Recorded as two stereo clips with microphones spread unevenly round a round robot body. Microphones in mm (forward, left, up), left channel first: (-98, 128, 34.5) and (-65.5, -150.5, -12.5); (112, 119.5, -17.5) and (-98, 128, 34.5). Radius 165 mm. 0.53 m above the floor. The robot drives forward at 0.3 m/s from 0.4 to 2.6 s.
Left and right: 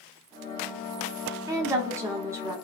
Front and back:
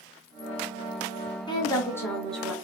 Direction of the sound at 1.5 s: 25° right.